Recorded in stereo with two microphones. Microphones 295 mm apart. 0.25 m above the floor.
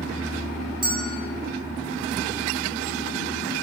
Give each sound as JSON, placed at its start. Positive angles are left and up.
{"t": 0.8, "sound": "a bell", "side_deg": -15, "distance_m": 1.5}